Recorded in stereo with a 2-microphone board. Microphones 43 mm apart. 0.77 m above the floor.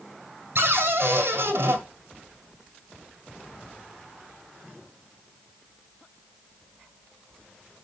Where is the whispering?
I don't hear whispering.